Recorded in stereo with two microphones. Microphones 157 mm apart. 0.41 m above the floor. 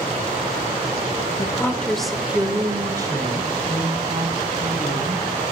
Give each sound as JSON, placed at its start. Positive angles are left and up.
{"t": 1.4, "sound": "a woman speaking", "side_deg": 25, "distance_m": 1.2}